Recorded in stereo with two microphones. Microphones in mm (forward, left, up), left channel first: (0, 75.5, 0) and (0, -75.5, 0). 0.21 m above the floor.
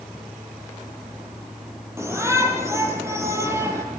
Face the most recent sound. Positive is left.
turn(degrees=-20)  # may be behind; listen again after turning